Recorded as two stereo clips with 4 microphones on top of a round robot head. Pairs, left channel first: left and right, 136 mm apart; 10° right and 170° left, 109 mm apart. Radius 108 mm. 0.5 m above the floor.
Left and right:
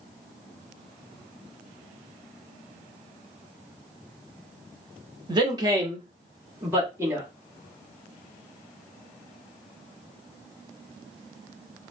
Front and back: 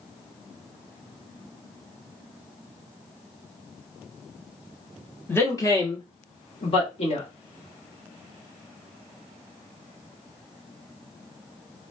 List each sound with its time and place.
5.3 s a man speaking: 65° right, 1.0 m; by 7.3 s 20° right, 1.7 m